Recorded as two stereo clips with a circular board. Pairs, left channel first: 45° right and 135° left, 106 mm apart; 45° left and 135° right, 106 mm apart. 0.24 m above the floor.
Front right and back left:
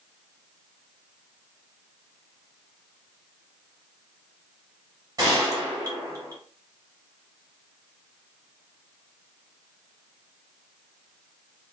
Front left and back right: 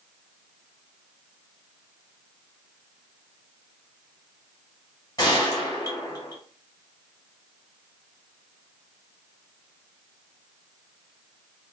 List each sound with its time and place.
5.2 s a gunshot: 90° left, 1.3 m